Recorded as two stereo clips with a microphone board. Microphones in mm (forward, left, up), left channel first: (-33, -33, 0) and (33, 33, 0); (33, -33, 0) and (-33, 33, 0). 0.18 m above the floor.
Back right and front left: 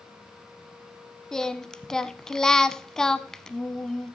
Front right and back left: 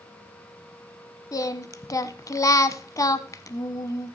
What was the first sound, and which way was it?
Singing, 55° right.